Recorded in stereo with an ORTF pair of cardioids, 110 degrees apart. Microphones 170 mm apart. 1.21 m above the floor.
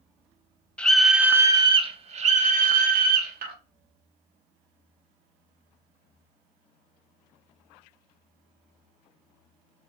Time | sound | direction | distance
0.8 | a scream | 5° left | 0.8 m